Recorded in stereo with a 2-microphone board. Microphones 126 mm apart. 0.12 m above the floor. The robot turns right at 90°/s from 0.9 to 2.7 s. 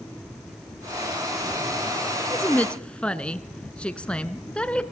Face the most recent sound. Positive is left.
turn(degrees=10)  # may be behind; listen again after turning